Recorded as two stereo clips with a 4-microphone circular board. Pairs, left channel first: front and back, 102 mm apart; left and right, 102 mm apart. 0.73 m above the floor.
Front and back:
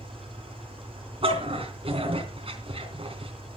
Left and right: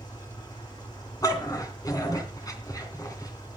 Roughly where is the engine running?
Behind left.